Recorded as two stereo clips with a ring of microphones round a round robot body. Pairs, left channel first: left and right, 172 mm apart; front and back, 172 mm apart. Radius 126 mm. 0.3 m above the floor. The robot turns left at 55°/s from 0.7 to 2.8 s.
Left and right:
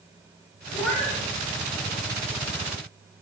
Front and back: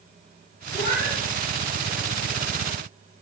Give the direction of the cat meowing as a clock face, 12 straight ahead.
11 o'clock.